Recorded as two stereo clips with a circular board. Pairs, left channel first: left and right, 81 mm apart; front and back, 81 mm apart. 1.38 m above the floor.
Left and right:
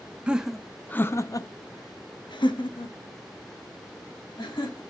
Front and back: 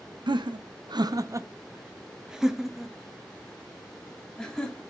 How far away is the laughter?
About 0.6 m.